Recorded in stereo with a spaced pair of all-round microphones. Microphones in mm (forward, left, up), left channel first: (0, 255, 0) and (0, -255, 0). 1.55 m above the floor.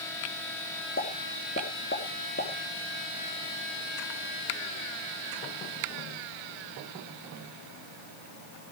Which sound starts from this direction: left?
A pop, at 1.0 s.